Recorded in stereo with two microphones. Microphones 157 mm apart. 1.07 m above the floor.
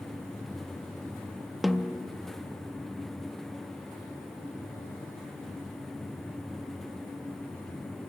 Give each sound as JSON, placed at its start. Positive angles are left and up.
{"t": 1.6, "sound": "a snare drum", "side_deg": 0, "distance_m": 0.6}